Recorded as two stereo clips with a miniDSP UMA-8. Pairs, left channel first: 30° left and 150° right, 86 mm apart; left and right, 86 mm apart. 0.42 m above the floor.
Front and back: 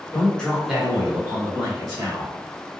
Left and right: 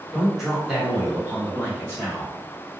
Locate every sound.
0.1 s a man speaking: straight ahead, 1.4 m; by 2.3 s 155° right, 1.9 m